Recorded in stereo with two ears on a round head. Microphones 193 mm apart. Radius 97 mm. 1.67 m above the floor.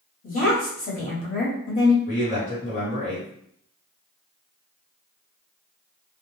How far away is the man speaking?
About 1.3 m.